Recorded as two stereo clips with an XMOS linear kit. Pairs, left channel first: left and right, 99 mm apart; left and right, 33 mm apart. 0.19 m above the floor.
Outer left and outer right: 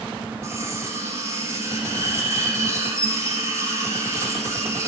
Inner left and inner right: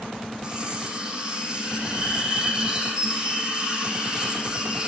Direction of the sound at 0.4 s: 30° right (ahead or behind).